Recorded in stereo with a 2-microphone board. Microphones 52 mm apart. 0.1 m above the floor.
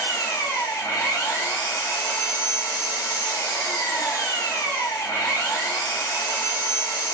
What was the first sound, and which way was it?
An engine running, 55° left (ahead or behind).